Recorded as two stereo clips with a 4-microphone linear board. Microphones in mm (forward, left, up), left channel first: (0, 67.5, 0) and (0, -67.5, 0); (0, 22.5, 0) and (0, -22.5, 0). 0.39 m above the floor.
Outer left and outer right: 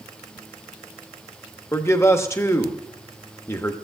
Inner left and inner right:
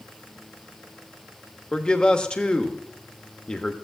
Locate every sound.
1.7 s a man speaking: 20° left (ahead or behind), 0.8 m